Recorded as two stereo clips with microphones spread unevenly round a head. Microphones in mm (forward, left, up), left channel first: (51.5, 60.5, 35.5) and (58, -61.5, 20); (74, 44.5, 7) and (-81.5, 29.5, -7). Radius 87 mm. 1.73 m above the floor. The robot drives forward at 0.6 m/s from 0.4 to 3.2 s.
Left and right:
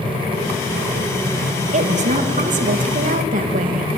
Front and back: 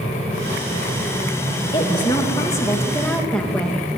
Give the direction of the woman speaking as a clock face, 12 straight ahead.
2 o'clock.